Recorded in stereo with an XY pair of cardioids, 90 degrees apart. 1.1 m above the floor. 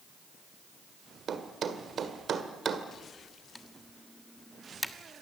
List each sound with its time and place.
1.3 s a thud: 60° right, 1.8 m
3.5 s typing on a keyboard: 5° left, 1.3 m